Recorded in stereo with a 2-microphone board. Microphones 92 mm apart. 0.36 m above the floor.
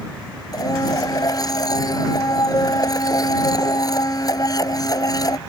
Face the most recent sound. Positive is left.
turn(degrees=40)  # may be behind; listen again after turning